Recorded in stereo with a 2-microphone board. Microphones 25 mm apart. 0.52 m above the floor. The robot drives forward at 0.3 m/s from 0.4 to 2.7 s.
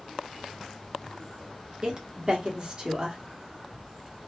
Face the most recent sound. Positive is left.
turn(degrees=-35)  # may be behind; listen again after turning